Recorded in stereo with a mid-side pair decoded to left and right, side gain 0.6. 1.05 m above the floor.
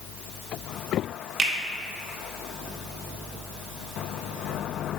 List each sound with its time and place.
1.4 s a finger snap: 35° right, 0.9 m